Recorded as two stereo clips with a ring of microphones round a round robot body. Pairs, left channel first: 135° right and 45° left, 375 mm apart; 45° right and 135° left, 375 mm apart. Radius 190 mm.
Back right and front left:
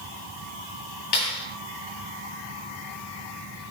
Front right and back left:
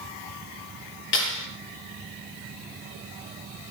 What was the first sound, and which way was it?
A clap, 105° right.